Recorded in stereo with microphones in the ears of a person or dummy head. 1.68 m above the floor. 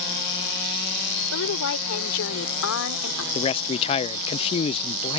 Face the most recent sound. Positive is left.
turn(degrees=30)  # may be behind; listen again after turning